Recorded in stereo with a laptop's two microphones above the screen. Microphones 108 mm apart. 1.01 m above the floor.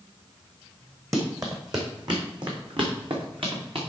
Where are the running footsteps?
30° right (ahead or behind), 2.5 m; by 3.8 s 55° right (ahead or behind), 3.5 m.